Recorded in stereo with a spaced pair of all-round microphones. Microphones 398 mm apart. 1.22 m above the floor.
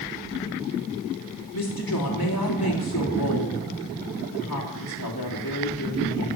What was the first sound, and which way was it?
A woman speaking, 65° left (ahead or behind).